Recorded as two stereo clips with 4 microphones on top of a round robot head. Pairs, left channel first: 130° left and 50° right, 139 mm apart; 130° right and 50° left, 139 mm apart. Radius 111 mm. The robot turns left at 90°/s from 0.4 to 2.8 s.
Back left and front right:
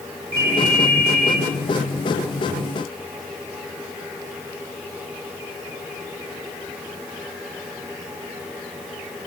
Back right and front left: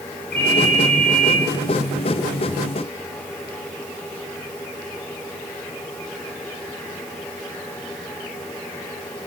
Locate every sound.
0.3 s a ringtone: 120° right, 6.5 m; by 1.4 s 155° left, 6.5 m